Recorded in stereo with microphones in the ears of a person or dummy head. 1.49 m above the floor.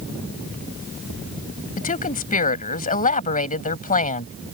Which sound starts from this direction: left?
A woman speaking, at 1.8 s.